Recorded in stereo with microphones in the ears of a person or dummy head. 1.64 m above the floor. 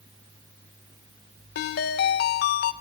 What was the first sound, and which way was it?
A ringtone, 50° left (ahead or behind).